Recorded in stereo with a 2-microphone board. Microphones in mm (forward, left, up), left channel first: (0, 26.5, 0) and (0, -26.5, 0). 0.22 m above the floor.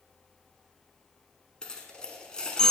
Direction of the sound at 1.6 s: 20° left (ahead or behind).